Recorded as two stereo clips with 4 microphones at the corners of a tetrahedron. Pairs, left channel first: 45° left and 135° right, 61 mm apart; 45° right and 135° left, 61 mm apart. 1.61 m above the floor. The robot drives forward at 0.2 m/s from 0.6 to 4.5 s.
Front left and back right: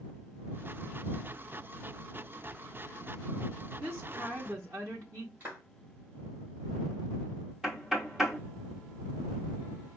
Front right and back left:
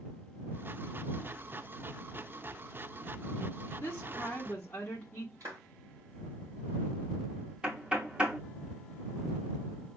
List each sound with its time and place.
3.8 s a woman speaking: 100° right, 1.0 m; by 5.3 s 110° right, 1.0 m
5.4 s a clap: 165° left, 3 m
7.6 s knocking: 165° left, 0.8 m